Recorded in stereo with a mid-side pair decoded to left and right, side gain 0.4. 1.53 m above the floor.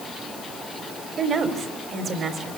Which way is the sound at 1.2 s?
60° right.